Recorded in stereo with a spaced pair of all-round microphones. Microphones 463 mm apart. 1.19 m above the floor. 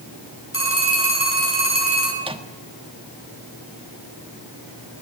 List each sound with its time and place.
0.5 s a phone ringing: 30° left (ahead or behind), 8 m
2.2 s a microwave: 10° right (ahead or behind), 1.3 m